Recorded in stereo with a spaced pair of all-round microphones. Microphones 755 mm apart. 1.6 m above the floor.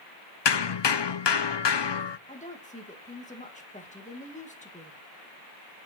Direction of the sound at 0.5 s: 40° left (ahead or behind).